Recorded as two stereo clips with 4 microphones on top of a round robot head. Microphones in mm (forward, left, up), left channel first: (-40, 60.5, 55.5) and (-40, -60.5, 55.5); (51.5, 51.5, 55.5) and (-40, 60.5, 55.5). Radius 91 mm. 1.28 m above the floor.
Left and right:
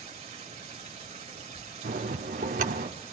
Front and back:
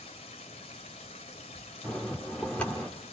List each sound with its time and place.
0.0 s running water: 40° right, 1.8 m
1.8 s a bell: 90° right, 1.4 m